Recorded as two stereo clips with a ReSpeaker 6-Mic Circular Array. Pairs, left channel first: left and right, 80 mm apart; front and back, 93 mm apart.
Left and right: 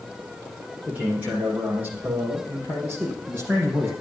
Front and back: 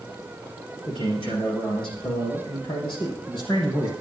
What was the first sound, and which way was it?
A man speaking, 20° right.